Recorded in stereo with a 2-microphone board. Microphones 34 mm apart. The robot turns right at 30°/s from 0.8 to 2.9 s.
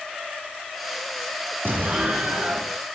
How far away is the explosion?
About 2.5 m.